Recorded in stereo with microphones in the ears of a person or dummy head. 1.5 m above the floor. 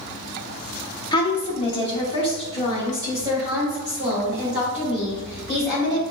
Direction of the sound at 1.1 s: 30° left (ahead or behind).